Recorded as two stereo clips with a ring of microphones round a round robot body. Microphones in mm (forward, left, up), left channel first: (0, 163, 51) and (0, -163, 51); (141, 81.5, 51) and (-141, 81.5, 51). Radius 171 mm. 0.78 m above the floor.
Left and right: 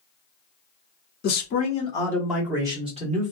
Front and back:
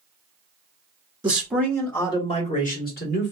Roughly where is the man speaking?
Behind left.